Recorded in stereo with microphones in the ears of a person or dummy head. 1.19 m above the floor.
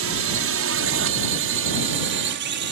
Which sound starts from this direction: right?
A drone, at 0.0 s.